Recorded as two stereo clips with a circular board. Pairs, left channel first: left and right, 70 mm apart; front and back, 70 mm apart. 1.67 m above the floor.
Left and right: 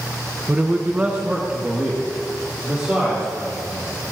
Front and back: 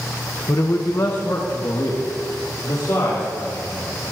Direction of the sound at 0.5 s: 25° right.